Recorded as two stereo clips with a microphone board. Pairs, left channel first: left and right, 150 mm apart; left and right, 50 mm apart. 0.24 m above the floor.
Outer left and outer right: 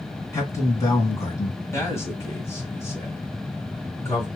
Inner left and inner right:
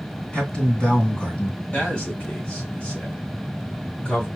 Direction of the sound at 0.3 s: 25° left (ahead or behind).